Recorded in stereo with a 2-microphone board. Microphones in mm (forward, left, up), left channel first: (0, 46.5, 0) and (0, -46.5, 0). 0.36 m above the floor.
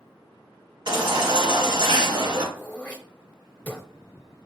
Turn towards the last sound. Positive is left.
turn(degrees=15)  # may be behind; listen again after turning